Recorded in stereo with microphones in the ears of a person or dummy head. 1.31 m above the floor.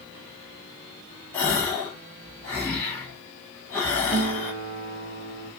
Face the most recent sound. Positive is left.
turn(degrees=-50)  # may be behind; listen again after turning